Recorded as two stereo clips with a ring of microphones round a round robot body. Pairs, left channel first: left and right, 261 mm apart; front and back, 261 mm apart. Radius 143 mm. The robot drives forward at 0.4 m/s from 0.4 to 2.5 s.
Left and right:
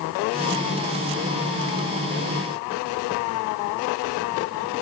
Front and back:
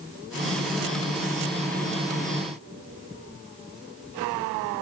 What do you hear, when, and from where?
Only background noise.